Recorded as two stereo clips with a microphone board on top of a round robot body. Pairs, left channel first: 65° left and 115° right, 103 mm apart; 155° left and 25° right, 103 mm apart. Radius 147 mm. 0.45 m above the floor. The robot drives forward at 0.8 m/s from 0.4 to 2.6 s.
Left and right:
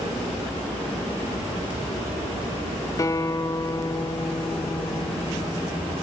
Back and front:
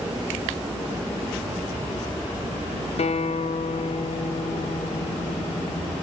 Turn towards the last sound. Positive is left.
turn(degrees=130)